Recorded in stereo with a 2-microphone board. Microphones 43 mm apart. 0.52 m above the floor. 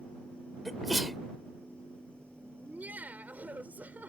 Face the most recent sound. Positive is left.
turn(degrees=-40)  # may be behind; listen again after turning